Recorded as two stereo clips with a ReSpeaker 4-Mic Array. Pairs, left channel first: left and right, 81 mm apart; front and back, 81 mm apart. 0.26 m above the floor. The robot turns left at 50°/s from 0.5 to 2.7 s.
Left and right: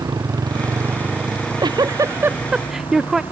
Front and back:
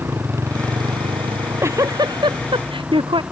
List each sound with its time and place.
0.0 s a motorcycle: 125° right; by 3.3 s 105° left
1.3 s a giggle: 105° right; by 3.2 s 175° right